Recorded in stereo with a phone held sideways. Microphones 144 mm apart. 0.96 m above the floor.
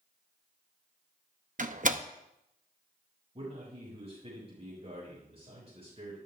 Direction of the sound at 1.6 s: 55° right (ahead or behind).